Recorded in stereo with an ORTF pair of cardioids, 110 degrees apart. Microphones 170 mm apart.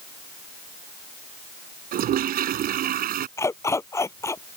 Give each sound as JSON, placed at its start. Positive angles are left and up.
{"t": 1.9, "sound": "a toilet flushing", "azimuth_deg": -65}
{"t": 3.4, "sound": "a dog barking", "azimuth_deg": 15}